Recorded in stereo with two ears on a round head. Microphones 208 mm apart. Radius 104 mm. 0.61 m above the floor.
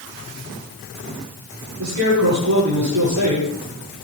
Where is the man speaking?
85° right, 9.5 m.